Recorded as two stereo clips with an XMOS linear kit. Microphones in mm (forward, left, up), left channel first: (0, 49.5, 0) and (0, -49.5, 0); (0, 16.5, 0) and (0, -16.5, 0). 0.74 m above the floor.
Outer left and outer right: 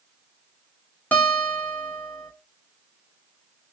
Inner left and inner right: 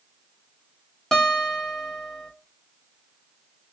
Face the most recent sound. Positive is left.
turn(degrees=15)  # may be behind; listen again after turning